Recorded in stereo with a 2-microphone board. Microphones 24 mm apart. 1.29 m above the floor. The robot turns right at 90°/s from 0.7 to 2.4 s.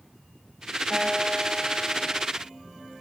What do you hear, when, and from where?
0.9 s a guitar: 20° right, 5.5 m; by 2.2 s 100° left, 5.5 m